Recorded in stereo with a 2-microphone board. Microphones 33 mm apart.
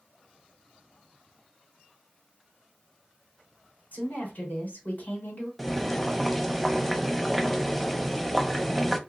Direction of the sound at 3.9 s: 55° left (ahead or behind).